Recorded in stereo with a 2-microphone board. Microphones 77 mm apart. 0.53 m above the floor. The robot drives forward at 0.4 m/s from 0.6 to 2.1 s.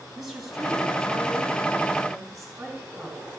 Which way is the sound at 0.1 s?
5° right (ahead or behind).